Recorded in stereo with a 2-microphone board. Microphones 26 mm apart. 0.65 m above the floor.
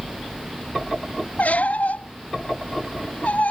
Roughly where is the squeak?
Left.